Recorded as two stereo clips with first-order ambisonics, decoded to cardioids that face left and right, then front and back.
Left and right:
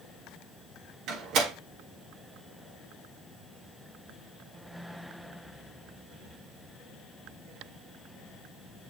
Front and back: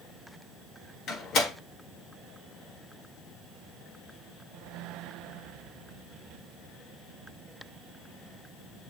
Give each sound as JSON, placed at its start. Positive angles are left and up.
{"t": 1.1, "sound": "a door slam", "azimuth_deg": -50, "distance_m": 1.7}